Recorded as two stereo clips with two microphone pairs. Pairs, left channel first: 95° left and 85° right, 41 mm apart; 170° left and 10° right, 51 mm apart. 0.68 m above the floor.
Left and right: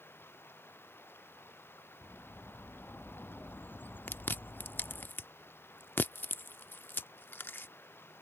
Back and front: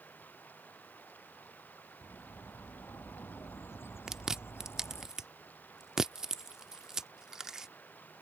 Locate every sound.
0.0 s running water: 115° left
2.0 s a bird: 135° left
4.1 s chewing: 70° left